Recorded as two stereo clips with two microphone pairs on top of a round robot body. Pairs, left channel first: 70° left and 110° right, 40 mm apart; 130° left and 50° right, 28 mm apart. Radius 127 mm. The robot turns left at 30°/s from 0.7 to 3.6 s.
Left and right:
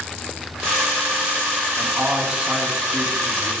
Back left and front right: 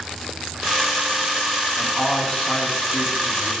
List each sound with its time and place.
1.8 s a man speaking: 165° right, 8 m; by 3.5 s 140° left, 8 m